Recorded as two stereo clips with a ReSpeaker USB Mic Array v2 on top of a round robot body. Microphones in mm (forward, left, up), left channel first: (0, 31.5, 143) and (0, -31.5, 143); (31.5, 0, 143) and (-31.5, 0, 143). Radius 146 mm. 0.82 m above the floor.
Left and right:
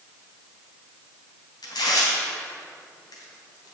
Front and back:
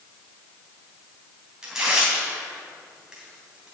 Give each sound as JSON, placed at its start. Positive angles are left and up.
{"t": 1.6, "sound": "tearing paper", "azimuth_deg": 100, "distance_m": 3.0}